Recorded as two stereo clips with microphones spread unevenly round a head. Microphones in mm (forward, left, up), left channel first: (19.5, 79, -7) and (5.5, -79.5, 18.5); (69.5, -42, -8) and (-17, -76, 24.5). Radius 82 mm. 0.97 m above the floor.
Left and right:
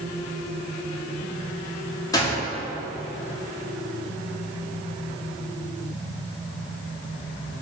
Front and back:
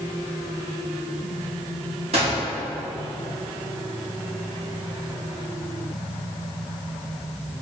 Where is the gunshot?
150° left, 2.5 m.